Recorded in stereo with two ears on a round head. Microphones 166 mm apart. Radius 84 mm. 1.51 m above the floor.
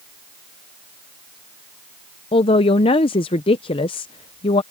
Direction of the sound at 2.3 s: 25° left (ahead or behind).